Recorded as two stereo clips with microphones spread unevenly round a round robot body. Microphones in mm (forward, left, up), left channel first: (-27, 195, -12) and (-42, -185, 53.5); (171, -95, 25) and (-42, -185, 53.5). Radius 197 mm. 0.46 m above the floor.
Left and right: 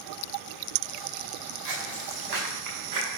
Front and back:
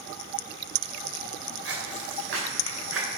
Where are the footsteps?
130° right, 4 m; by 3.1 s 135° right, 6.5 m.